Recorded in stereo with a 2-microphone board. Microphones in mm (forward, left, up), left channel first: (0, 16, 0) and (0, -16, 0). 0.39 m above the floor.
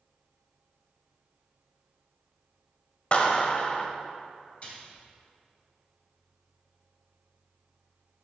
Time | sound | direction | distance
3.1 | a clap | 45° left (ahead or behind) | 1.3 m
4.6 | a splash | 45° left (ahead or behind) | 2.5 m